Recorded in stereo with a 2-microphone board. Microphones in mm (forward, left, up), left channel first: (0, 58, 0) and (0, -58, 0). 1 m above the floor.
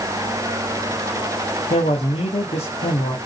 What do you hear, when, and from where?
1.7 s a man speaking: 65° left (ahead or behind), 1.6 m